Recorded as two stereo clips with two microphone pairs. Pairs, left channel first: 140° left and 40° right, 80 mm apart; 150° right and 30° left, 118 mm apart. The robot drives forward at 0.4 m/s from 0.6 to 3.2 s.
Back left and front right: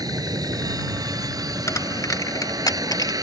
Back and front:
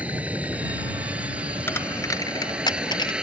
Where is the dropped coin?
150° left; by 3.1 s 170° left.